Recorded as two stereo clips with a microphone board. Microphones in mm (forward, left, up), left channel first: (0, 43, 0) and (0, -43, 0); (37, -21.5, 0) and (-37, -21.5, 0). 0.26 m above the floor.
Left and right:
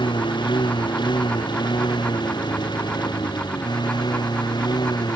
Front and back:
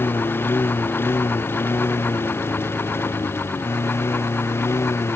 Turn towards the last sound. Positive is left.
turn(degrees=55)